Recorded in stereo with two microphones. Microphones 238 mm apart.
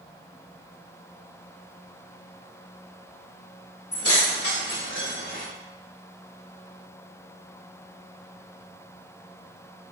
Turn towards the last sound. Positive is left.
turn(degrees=35)  # may be behind; listen again after turning